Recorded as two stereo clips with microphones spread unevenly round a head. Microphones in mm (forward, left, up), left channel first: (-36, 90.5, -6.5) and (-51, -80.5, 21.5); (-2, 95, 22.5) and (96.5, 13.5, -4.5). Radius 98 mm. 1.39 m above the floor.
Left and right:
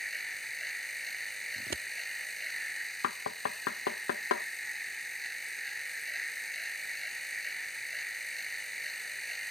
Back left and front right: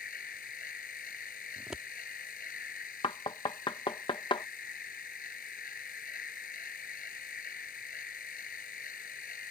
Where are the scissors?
130° right.